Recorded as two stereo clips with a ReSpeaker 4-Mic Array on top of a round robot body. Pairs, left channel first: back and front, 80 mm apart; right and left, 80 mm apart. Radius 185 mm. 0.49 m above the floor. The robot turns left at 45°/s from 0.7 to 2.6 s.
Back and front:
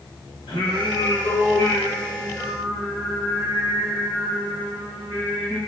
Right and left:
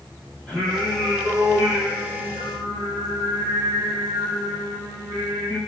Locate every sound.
0.5 s singing: 170° right, 2.0 m; by 5.6 s 105° left, 2.0 m